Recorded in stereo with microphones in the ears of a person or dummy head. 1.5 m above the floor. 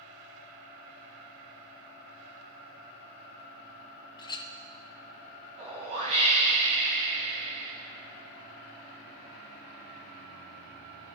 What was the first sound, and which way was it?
A clink, 25° left (ahead or behind).